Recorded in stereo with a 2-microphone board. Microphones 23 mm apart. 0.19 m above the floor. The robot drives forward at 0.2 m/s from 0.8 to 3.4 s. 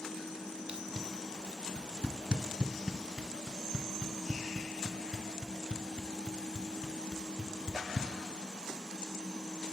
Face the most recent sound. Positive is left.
turn(degrees=-35)  # may be behind; listen again after turning